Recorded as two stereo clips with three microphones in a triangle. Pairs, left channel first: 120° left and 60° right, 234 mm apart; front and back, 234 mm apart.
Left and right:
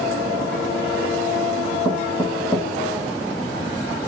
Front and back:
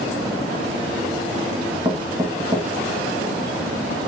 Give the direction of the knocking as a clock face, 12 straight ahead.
7 o'clock.